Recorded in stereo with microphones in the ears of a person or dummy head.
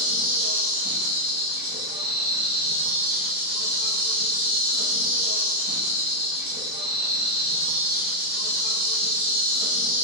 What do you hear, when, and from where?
0.0 s an insect: 20° right (ahead or behind), 0.9 m